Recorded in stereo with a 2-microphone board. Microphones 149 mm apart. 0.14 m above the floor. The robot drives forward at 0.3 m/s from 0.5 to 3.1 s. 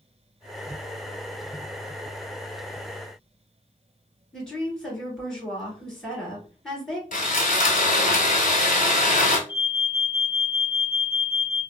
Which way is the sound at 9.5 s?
30° left (ahead or behind).